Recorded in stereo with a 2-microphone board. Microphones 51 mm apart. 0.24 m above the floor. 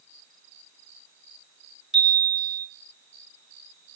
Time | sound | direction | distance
1.9 | a chime | 10° right (ahead or behind) | 3 m